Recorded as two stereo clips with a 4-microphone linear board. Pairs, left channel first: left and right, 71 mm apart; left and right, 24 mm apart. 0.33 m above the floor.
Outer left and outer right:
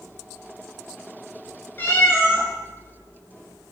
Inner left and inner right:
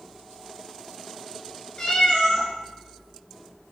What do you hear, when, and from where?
1.8 s a cat meowing: 30° left (ahead or behind), 0.6 m